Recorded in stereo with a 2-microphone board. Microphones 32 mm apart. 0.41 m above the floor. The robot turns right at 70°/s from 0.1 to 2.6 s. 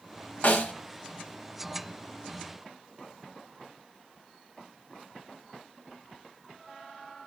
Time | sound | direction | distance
0.4 | a snare drum | 75° left (ahead or behind) | 1.1 m